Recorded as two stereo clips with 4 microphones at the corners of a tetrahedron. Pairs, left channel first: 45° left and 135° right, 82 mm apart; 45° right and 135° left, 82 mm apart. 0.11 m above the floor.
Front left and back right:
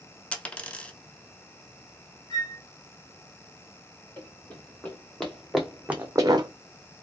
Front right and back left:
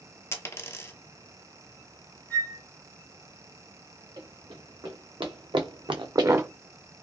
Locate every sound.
0.3 s a dropped coin: 25° right, 0.6 m
2.3 s a flute: 20° left, 1.1 m
4.2 s running footsteps: 115° left, 1.9 m; by 6.5 s 160° right, 0.5 m